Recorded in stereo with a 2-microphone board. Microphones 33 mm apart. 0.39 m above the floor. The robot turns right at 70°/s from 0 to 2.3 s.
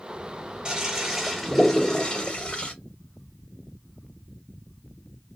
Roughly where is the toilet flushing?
Ahead right.